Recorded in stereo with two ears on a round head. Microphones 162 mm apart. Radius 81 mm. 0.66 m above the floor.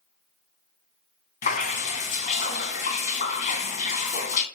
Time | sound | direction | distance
1.4 | dripping | 45° left (ahead or behind) | 2 m